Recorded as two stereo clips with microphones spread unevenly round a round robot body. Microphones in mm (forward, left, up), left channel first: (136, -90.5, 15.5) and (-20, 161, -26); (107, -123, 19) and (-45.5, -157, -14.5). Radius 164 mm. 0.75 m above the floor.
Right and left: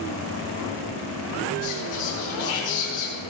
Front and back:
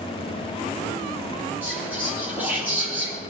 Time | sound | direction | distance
1.6 | whispering | 85° right | 8 m